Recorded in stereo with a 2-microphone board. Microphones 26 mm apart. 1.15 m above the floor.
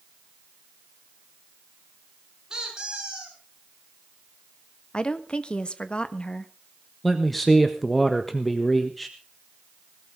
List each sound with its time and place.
2.5 s a squeak: 25° right (ahead or behind), 6 m
4.9 s a woman speaking: 35° left (ahead or behind), 1.4 m
7.0 s a man speaking: 5° left (ahead or behind), 1.4 m